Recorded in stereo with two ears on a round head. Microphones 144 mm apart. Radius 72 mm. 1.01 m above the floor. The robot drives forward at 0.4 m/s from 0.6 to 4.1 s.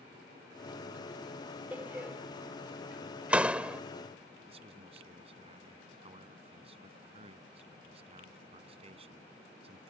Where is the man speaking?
40° right (ahead or behind).